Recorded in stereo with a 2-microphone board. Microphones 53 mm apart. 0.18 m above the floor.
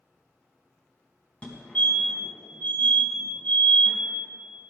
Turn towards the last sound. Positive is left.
turn(degrees=25)  # may be behind; listen again after turning